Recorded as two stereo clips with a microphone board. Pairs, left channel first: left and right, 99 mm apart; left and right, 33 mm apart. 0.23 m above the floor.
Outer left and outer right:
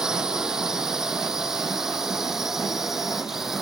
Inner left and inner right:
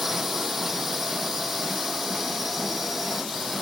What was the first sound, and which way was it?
A drone, 5° right (ahead or behind).